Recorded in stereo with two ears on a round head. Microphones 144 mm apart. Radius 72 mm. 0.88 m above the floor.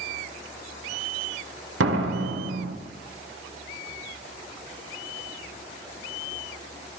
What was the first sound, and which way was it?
A door slam, 85° right.